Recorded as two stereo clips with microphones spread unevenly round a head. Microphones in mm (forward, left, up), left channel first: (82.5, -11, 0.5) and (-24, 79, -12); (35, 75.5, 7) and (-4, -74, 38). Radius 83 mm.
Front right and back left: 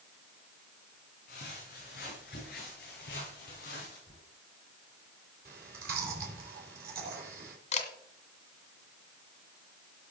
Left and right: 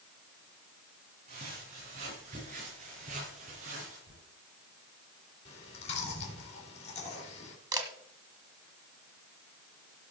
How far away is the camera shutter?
About 1.6 m.